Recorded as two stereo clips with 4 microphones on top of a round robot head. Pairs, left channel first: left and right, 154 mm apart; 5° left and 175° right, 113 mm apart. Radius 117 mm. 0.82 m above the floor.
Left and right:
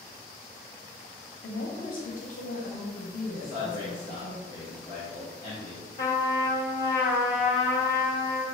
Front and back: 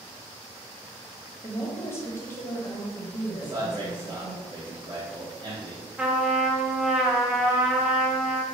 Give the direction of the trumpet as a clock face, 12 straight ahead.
8 o'clock.